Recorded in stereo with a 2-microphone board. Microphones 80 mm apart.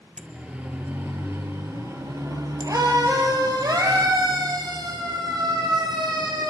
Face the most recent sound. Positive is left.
turn(degrees=-75)  # may be behind; listen again after turning